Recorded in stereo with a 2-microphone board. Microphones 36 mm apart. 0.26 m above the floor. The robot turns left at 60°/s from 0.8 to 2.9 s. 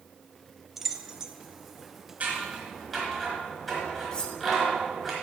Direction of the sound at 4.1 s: 20° left (ahead or behind).